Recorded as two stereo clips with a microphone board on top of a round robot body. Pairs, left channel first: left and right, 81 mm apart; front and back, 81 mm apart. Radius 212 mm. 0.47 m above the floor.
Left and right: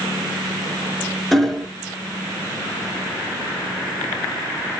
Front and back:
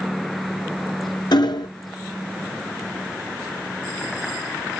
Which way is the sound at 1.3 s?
Straight ahead.